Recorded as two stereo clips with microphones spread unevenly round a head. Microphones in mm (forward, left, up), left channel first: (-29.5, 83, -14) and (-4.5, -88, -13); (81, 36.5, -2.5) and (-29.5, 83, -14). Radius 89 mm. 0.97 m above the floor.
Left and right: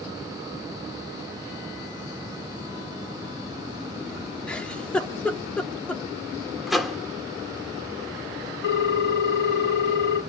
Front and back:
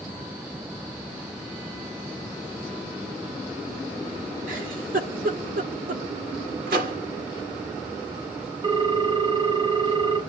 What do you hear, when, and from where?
4.5 s a giggle: straight behind, 2.0 m
6.7 s a microwave: 170° right, 1.6 m
8.6 s a ringtone: 110° left, 1.9 m